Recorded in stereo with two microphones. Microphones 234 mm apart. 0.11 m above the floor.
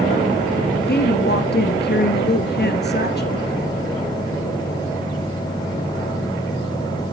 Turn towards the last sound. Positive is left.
turn(degrees=45)  # may be behind; listen again after turning